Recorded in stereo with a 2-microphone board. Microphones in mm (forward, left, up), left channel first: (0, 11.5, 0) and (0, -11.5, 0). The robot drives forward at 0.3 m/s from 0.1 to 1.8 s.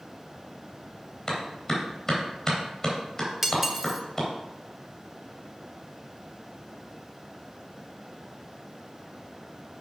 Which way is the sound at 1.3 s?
20° left (ahead or behind).